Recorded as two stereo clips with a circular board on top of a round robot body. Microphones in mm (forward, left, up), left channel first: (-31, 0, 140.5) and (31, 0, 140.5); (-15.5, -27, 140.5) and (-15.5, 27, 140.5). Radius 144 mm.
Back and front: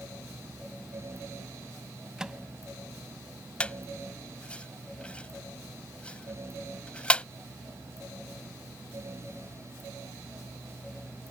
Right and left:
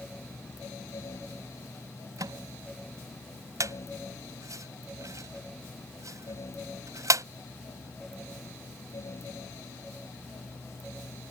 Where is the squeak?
110° left.